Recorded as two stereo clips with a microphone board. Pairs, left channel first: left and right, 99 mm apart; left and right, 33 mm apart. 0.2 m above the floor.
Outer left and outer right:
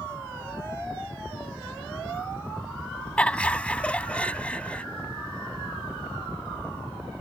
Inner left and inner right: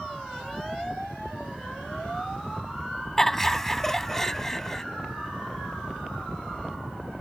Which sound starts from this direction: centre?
Laughter, at 3.2 s.